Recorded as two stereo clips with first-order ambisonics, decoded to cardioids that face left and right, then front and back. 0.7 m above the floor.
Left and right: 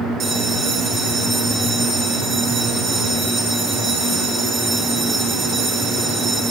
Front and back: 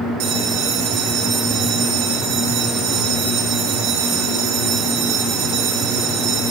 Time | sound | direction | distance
0.2 | a bell | 160° right | 0.6 m